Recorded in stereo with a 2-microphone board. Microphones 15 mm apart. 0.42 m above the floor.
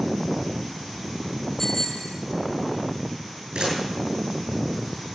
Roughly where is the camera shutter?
Right.